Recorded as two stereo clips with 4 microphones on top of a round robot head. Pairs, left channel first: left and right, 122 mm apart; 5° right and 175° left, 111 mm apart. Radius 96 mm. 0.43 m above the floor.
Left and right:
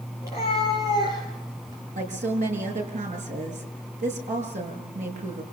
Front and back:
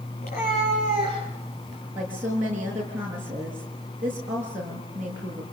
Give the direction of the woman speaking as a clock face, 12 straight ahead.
3 o'clock.